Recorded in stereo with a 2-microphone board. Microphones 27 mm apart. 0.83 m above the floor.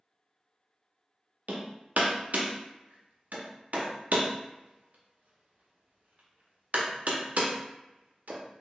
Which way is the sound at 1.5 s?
70° right (ahead or behind).